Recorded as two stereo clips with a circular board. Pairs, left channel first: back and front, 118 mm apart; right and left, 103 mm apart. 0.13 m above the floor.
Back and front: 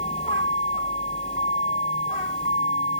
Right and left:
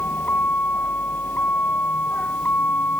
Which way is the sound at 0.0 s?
160° right.